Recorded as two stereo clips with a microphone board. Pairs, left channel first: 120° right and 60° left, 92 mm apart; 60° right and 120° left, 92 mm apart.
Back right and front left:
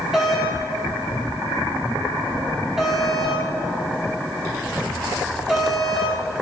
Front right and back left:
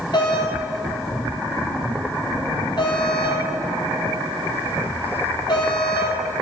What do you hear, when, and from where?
0.1 s a doorbell: 25° right, 3.5 m